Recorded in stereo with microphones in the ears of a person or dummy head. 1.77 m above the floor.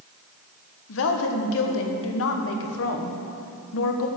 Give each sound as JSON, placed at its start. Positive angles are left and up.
{"t": 0.9, "sound": "a woman speaking", "side_deg": 75, "distance_m": 1.4}